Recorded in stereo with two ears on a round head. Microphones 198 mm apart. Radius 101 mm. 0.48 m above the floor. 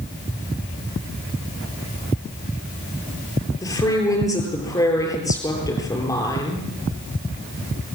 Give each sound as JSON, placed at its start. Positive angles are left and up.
{"t": 3.6, "sound": "a woman speaking", "side_deg": 15, "distance_m": 8.0}